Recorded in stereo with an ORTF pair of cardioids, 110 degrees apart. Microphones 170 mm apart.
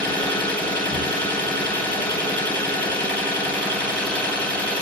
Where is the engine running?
5° left, 0.8 m.